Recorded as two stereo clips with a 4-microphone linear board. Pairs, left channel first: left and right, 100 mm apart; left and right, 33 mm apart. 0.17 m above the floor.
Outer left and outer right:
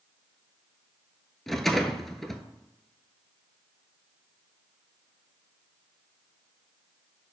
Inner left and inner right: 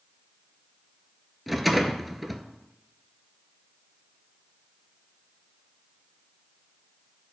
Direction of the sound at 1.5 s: Centre (ahead or behind).